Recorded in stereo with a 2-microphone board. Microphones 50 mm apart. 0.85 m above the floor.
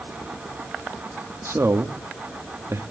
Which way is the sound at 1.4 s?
65° right (ahead or behind).